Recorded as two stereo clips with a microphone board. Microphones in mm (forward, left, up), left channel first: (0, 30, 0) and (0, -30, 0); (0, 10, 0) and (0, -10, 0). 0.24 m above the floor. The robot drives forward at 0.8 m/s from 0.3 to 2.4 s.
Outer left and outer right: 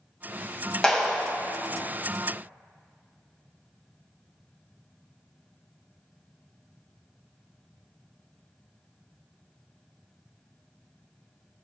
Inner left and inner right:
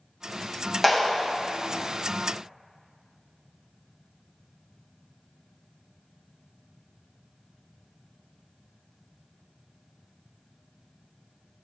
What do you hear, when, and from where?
0.8 s a clap: 15° left (ahead or behind), 1.1 m